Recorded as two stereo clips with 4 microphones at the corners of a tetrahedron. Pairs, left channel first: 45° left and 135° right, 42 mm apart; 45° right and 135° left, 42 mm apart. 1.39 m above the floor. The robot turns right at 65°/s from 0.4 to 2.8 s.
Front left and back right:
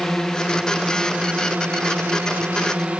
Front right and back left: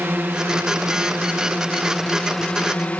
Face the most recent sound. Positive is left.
turn(degrees=-85)